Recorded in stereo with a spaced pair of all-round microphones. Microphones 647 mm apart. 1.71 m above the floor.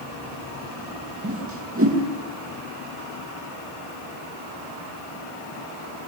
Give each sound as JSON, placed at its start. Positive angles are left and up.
{"t": 1.2, "sound": "a whoosh", "side_deg": -20, "distance_m": 2.5}